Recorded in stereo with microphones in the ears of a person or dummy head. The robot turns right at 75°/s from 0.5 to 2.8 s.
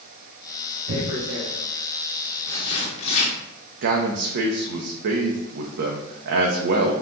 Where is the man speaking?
60° right (ahead or behind), 0.5 m.